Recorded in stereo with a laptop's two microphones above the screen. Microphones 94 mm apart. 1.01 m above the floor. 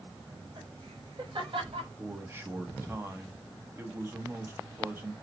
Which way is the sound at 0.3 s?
60° right (ahead or behind).